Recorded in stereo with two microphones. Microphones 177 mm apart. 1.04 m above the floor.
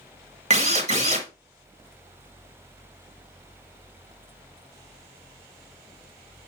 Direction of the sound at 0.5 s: 40° right (ahead or behind).